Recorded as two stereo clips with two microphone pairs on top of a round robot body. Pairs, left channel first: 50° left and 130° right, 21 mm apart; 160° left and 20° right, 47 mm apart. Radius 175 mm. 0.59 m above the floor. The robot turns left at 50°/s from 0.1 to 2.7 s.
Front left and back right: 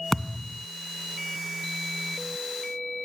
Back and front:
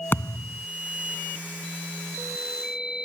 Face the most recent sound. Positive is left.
turn(degrees=-5)